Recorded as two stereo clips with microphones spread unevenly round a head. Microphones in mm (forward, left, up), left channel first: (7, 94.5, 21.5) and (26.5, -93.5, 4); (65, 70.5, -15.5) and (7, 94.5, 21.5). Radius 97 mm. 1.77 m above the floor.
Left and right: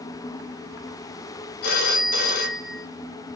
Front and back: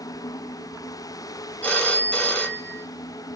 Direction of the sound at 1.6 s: 65° left.